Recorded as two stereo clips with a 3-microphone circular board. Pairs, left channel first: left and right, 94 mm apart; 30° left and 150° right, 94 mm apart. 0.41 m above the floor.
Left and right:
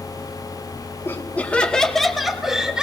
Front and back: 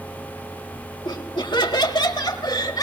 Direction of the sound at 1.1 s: 35° left.